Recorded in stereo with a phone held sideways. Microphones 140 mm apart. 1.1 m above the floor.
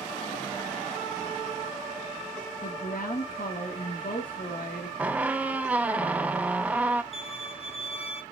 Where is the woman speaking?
80° left, 1.7 m.